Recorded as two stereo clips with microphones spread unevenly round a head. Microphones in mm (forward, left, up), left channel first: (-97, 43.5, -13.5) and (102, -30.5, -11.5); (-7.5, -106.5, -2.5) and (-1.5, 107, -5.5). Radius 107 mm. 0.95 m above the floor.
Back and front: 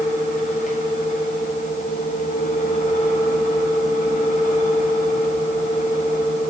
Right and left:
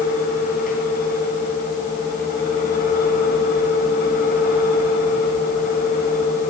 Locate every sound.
0.0 s a fan: 145° right, 9.5 m